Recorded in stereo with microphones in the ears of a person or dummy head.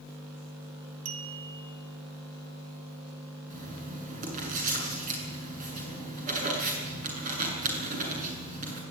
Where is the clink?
75° right (ahead or behind), 1.7 m.